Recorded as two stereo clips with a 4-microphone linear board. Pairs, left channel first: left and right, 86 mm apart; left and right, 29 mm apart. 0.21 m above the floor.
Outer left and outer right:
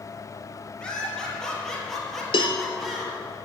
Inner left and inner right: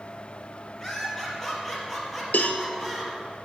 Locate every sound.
0.8 s laughter: 10° left (ahead or behind), 4.5 m; by 3.1 s 5° right (ahead or behind), 4 m
2.3 s a cowbell: 75° left (ahead or behind), 1.1 m